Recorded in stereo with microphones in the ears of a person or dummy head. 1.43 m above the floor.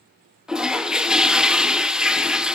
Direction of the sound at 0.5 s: 5° right (ahead or behind).